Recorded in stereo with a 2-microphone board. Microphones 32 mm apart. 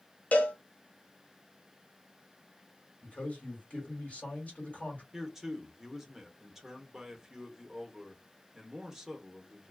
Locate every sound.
0.3 s a cowbell: 50° left (ahead or behind), 0.6 m
3.0 s a man speaking: 45° left (ahead or behind), 1.6 m
5.1 s a man speaking: 10° right (ahead or behind), 0.8 m